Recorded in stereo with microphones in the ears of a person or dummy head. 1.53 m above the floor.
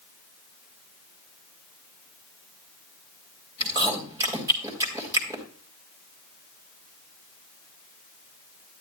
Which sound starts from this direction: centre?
Chewing, at 3.6 s.